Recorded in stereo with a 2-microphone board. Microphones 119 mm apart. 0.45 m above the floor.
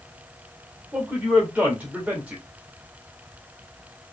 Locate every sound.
0.9 s a man speaking: 15° right (ahead or behind), 1.8 m